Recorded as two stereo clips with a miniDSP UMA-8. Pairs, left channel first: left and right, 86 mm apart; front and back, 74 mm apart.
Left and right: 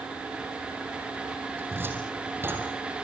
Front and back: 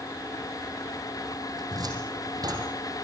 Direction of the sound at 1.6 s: 155° right.